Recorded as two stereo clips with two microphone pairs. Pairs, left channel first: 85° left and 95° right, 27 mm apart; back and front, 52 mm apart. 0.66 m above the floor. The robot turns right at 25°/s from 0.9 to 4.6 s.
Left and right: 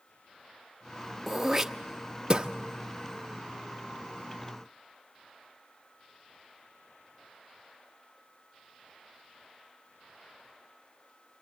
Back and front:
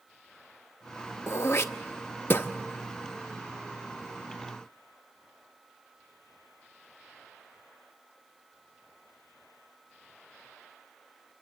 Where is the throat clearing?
175° right, 0.8 m; by 2.5 s 145° right, 0.8 m.